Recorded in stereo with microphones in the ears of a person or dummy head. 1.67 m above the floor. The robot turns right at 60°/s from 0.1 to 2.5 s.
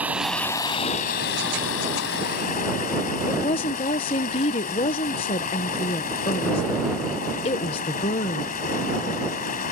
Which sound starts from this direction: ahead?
Running water, at 0.0 s.